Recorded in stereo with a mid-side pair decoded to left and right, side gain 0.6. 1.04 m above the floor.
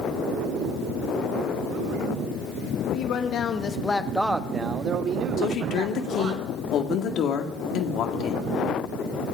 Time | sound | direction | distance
2.8 | a man speaking | 65° left | 1.9 m
5.4 | a woman speaking | 60° left | 2.0 m